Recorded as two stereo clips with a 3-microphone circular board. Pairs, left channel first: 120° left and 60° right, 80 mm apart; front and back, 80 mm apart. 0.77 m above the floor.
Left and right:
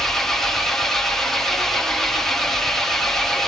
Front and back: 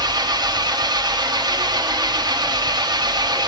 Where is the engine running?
155° right, 0.9 m.